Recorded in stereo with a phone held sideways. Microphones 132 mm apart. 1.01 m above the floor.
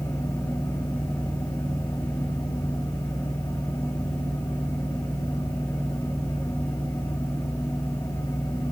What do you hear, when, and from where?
0.0 s a fan: 20° left (ahead or behind), 2.5 m